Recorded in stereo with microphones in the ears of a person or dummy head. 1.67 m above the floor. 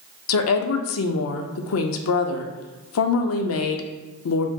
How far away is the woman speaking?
About 0.5 m.